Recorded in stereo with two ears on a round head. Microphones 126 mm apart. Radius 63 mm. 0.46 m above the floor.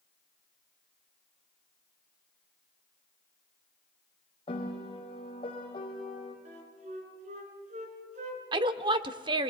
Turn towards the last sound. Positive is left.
turn(degrees=-35)  # may be behind; listen again after turning